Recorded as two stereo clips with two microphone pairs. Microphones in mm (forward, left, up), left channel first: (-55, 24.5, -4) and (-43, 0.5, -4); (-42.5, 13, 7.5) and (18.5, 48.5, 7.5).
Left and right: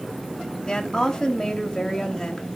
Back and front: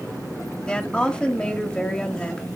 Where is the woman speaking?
145° left, 1.2 m.